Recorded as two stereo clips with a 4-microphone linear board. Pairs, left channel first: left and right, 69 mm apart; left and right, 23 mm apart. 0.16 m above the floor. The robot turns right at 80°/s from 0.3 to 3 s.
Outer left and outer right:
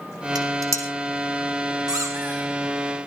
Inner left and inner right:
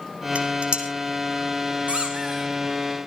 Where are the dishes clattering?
80° right, 4.5 m; by 0.9 s 45° right (ahead or behind), 4.5 m.